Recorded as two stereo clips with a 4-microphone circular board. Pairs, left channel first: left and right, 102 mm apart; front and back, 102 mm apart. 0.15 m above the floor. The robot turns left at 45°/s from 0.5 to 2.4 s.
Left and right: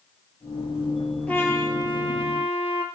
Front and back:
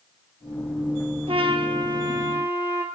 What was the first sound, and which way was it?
A trumpet, 165° left.